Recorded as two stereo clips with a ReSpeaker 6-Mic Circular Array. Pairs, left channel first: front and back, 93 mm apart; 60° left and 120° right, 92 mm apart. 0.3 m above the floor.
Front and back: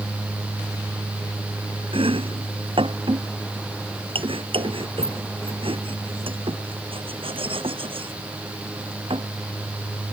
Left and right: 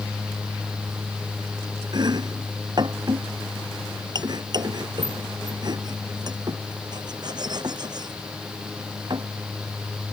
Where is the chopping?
160° right.